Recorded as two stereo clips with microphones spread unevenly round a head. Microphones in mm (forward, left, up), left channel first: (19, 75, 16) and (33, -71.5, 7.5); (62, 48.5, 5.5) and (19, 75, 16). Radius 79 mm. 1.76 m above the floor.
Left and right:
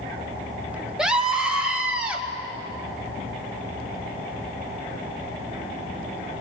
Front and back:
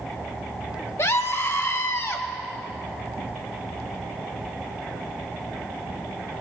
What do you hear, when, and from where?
1.0 s a scream: straight ahead, 1.3 m; by 2.2 s 5° right, 2 m